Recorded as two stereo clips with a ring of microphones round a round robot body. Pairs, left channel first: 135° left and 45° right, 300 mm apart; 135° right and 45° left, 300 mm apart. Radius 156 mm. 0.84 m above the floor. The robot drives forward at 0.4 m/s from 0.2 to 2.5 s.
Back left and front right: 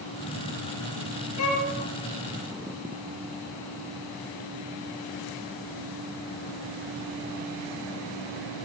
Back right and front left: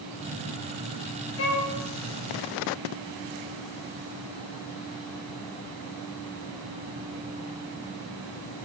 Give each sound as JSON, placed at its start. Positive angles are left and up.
{"t": 1.4, "sound": "a violin", "azimuth_deg": 175, "distance_m": 3.5}